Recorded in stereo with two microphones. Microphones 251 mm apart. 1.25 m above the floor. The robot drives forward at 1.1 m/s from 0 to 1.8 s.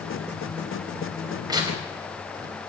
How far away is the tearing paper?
About 5 m.